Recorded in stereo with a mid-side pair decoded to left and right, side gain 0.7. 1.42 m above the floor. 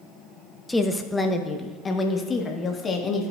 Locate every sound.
0.7 s a woman speaking: 10° left, 0.8 m; by 3.3 s 30° left, 2 m